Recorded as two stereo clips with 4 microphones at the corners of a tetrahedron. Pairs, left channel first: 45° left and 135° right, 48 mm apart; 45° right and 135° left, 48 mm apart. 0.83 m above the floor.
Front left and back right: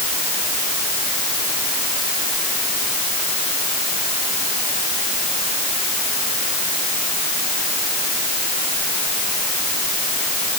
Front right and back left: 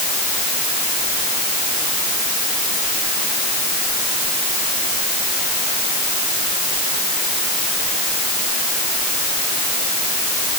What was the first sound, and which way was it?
Only background noise.